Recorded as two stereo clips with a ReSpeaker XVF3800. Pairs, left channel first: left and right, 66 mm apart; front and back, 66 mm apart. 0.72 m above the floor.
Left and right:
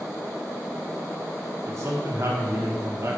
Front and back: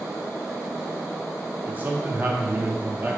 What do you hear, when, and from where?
1.7 s a man speaking: 120° right, 0.9 m